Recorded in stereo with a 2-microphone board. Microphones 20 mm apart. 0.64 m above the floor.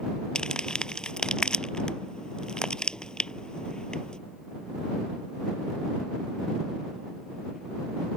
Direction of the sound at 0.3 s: 40° left (ahead or behind).